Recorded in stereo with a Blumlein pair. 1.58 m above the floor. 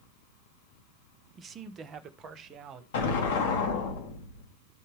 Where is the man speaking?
20° right, 0.9 m; by 2.8 s 25° right, 2 m.